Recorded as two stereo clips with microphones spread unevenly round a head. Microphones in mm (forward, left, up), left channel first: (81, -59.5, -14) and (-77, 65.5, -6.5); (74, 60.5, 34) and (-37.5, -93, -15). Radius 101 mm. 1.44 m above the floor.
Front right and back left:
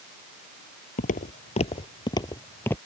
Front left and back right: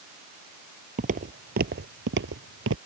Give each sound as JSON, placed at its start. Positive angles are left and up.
{"t": 1.0, "sound": "footsteps", "azimuth_deg": -75}